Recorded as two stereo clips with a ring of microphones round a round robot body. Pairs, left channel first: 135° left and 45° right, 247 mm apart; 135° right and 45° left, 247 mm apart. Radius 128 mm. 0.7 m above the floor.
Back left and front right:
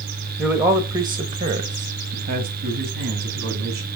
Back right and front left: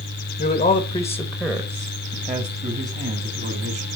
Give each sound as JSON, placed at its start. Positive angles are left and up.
{"t": 0.4, "sound": "a man speaking", "azimuth_deg": -130, "distance_m": 0.9}